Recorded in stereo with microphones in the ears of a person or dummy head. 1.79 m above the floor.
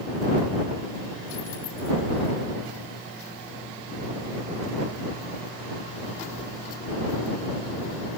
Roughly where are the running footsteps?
No running footsteps in this recording.